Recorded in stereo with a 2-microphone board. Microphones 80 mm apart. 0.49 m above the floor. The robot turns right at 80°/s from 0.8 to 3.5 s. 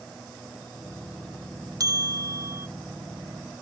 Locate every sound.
1.8 s a bell: 115° right, 0.6 m; by 2.7 s 45° right, 0.6 m